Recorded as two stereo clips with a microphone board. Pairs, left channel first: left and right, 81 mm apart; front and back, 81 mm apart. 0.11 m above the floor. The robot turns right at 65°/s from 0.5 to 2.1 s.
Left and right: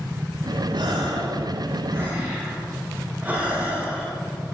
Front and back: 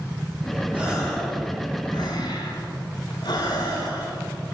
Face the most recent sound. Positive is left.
turn(degrees=-20)